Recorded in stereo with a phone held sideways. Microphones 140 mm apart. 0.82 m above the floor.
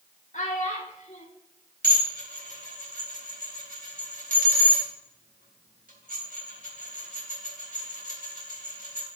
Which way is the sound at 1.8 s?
80° right.